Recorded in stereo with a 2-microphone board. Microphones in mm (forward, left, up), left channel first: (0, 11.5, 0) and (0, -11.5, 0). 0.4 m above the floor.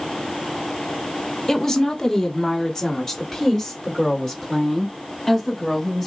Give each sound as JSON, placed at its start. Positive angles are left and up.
{"t": 1.5, "sound": "a woman speaking", "side_deg": 30, "distance_m": 1.5}